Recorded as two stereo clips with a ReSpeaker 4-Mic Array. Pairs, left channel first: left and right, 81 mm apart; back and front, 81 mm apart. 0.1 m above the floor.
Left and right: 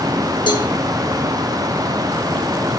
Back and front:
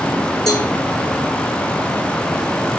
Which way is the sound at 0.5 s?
95° left.